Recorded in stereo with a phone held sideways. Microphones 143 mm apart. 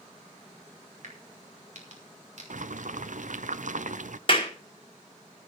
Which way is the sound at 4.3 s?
40° left (ahead or behind).